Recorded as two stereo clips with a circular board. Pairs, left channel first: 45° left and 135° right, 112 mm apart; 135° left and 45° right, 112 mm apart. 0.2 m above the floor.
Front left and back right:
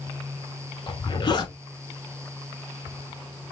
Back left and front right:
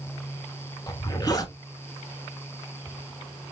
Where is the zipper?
85° left, 1.0 m.